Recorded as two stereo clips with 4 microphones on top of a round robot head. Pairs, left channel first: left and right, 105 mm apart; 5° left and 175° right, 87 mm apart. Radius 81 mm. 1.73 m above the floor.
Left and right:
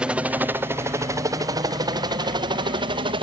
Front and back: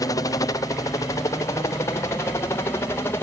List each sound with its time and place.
0.0 s a helicopter: 15° right; by 3.2 s 60° right